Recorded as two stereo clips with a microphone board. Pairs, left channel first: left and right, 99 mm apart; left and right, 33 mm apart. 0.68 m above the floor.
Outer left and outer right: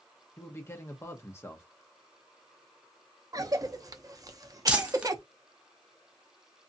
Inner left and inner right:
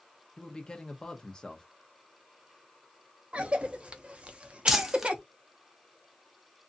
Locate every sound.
0.4 s a man speaking: 25° left (ahead or behind), 0.8 m
3.3 s a cough: 35° right (ahead or behind), 0.6 m
4.7 s crumpling: 10° right (ahead or behind), 0.7 m